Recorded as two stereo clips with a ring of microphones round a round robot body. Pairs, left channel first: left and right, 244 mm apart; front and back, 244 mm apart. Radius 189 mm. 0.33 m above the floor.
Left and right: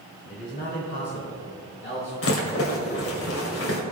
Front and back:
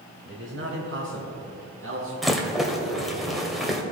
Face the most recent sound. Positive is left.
turn(degrees=90)